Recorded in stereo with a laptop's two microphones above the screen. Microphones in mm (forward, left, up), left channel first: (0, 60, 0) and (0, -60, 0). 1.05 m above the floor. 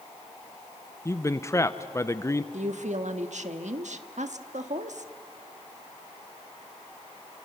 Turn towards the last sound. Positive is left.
turn(degrees=-75)  # may be behind; listen again after turning